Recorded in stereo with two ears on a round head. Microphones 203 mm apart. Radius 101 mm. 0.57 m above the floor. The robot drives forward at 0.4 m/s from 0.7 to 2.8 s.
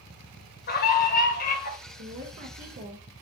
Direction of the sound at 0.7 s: 45° left (ahead or behind).